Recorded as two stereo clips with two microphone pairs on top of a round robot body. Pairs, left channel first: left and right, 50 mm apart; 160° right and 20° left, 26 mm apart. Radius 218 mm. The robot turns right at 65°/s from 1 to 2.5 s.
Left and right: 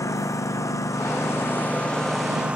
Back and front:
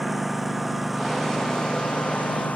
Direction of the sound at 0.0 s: 105° left.